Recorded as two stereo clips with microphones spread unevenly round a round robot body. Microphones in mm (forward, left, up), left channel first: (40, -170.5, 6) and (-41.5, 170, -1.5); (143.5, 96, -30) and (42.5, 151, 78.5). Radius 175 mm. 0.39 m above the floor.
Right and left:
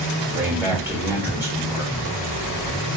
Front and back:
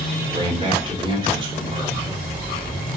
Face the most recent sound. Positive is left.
turn(degrees=30)